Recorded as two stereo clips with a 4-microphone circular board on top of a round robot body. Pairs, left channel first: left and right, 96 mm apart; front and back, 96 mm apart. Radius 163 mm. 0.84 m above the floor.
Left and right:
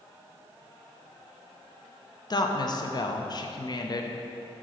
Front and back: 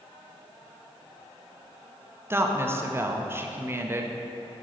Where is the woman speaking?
120° left, 0.7 m.